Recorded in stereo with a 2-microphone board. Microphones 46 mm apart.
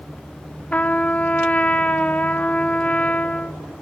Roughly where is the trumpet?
Left.